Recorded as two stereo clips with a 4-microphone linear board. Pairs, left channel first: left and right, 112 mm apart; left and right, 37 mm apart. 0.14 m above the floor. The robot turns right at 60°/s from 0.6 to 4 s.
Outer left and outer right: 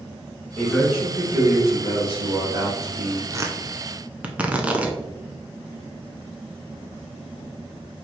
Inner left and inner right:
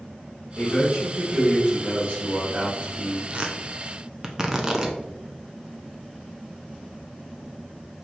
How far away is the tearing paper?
About 0.6 m.